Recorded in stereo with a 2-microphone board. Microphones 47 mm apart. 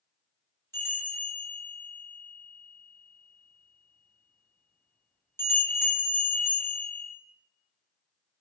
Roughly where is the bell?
Left.